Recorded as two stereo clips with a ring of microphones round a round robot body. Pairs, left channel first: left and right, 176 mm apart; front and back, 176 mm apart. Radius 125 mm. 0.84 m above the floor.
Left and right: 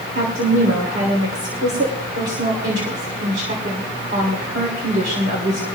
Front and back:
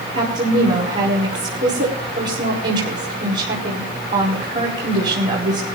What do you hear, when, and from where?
0.1 s a woman speaking: 135° right, 3.5 m